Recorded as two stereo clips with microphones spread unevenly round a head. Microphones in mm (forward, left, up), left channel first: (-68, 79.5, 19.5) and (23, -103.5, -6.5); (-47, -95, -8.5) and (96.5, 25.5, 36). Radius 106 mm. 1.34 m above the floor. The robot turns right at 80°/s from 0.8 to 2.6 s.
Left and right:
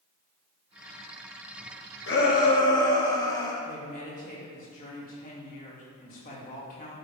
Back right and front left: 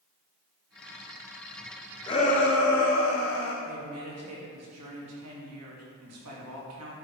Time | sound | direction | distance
2.1 | a shout | 145° left | 2.5 m
3.6 | a woman speaking | 60° left | 2.5 m